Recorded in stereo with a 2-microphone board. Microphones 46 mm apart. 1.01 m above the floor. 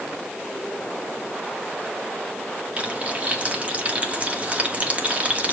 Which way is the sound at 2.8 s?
30° right (ahead or behind).